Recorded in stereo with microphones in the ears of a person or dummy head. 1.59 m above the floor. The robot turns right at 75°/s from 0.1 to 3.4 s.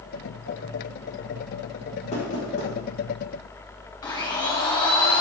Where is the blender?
15° left (ahead or behind), 0.7 m.